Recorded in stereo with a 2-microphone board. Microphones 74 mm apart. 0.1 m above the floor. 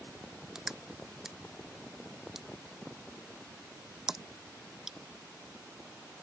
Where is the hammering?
I don't hear hammering.